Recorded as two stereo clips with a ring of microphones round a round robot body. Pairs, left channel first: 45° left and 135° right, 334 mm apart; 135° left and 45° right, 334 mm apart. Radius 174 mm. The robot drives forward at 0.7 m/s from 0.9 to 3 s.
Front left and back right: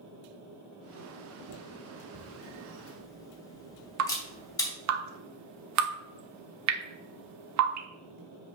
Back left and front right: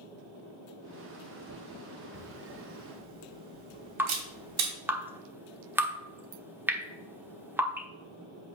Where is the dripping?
125° right, 1.1 m.